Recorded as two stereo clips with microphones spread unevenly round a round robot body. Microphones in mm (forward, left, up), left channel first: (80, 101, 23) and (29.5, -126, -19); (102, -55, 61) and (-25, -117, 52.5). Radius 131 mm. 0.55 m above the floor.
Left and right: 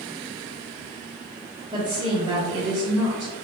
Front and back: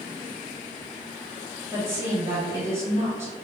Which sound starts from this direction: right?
A woman speaking, at 1.7 s.